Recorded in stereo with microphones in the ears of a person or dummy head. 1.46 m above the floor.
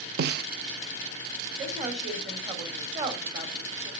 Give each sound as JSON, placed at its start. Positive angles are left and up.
{"t": 0.2, "sound": "a snare drum", "side_deg": -60, "distance_m": 0.7}
{"t": 1.6, "sound": "a woman speaking", "side_deg": -35, "distance_m": 3.5}